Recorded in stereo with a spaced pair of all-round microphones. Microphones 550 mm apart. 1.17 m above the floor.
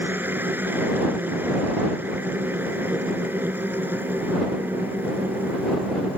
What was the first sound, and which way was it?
A machine running, 5° right (ahead or behind).